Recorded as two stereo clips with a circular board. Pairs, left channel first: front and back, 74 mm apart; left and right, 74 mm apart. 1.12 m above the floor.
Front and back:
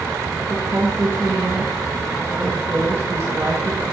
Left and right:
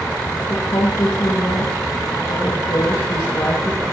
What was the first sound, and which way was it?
A woman speaking, 125° left.